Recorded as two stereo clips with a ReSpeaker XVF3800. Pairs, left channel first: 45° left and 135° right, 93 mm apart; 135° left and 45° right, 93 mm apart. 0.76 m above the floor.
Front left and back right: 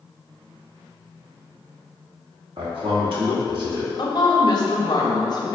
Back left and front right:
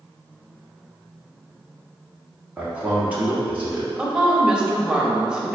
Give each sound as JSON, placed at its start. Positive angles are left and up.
{"t": 2.6, "sound": "a man speaking", "azimuth_deg": -120, "distance_m": 1.2}
{"t": 4.0, "sound": "a woman speaking", "azimuth_deg": 35, "distance_m": 0.7}